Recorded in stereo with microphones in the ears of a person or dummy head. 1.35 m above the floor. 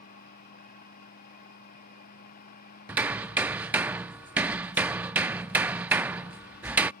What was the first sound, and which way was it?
A fan, 50° left (ahead or behind).